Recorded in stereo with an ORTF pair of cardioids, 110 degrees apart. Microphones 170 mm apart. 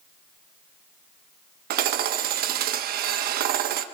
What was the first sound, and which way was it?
Hammering, 70° right.